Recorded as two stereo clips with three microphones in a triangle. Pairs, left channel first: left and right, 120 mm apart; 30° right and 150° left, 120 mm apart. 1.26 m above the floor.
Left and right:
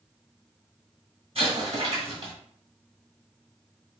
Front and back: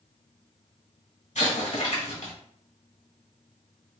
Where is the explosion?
50° right, 1.8 m.